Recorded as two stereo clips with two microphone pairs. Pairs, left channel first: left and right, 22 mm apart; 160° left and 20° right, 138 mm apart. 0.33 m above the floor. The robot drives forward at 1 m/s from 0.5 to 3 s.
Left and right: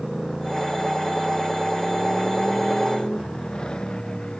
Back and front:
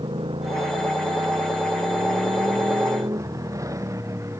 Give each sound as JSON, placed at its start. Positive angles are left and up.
{"t": 0.0, "sound": "a motorcycle", "azimuth_deg": 25}